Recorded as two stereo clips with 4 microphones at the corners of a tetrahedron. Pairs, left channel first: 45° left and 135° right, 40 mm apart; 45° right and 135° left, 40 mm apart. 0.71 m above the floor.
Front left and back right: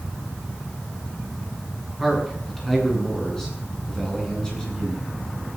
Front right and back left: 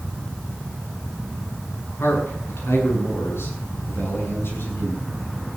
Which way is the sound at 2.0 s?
40° right.